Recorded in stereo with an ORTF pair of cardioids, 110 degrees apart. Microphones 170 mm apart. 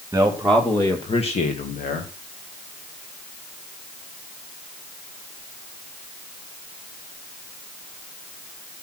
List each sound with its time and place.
0.1 s a man speaking: 10° right, 2.5 m; by 2.1 s 65° left, 3 m